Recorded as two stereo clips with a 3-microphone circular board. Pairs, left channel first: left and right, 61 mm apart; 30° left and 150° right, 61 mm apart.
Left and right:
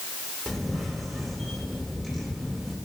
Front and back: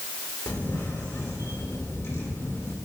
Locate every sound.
0.5 s a camera shutter: 5° left, 2 m